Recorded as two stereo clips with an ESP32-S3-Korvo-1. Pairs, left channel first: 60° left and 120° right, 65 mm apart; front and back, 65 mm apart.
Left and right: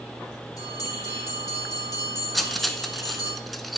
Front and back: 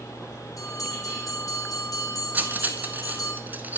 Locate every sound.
0.6 s a bell: 35° left, 4.5 m
2.3 s cutlery clinking: 150° left, 0.7 m